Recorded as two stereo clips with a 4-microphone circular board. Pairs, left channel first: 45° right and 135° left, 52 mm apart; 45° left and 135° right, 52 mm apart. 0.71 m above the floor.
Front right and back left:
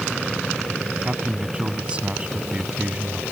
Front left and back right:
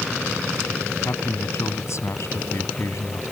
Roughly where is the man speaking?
Ahead left.